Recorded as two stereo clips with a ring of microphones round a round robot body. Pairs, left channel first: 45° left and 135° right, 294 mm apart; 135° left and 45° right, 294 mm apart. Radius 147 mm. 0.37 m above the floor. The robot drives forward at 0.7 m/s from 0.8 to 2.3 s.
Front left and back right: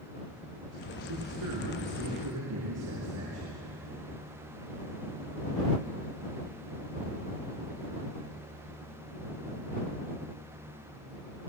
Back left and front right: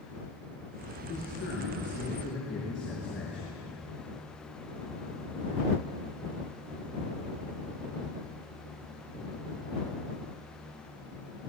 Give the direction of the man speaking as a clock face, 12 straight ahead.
6 o'clock.